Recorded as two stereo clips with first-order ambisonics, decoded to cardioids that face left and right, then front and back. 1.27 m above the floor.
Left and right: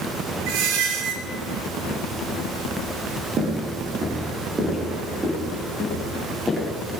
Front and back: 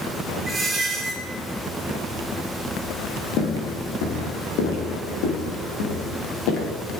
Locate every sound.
0.5 s a squeak: 95° right, 3 m
3.4 s footsteps: 30° right, 3.5 m; by 6.7 s straight ahead, 5 m